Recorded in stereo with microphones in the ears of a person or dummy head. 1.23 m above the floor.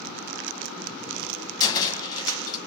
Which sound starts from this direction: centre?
A cupboard door, at 1.6 s.